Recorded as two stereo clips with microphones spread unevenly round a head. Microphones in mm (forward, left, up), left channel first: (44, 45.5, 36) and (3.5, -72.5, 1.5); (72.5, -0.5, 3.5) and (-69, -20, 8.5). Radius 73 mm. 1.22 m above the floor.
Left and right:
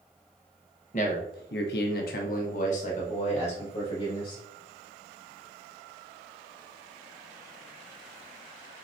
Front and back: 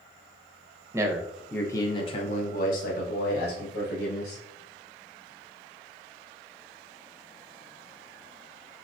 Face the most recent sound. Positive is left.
turn(degrees=25)